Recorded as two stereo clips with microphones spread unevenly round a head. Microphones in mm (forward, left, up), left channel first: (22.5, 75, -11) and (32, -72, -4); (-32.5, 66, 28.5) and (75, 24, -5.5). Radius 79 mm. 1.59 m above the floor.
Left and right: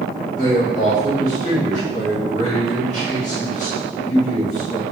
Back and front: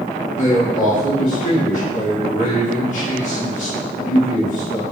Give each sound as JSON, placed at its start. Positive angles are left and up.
{"t": 0.4, "sound": "a man speaking", "azimuth_deg": 145, "distance_m": 3.0}